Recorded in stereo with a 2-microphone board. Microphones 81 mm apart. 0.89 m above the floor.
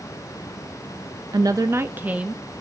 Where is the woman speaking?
55° right (ahead or behind), 0.5 m; by 2.4 s 15° right (ahead or behind), 1.1 m.